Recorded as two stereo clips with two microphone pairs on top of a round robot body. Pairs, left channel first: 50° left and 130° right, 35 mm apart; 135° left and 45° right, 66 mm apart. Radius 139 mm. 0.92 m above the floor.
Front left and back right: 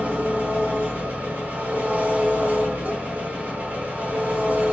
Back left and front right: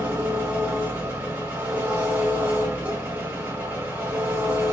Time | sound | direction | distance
0.0 | an engine running | 105° right | 1.1 m